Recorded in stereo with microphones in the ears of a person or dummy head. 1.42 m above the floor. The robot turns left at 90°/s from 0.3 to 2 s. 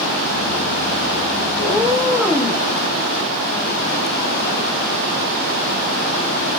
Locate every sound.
1.6 s a cat meowing: 140° right, 0.9 m; by 2.6 s 175° right, 0.9 m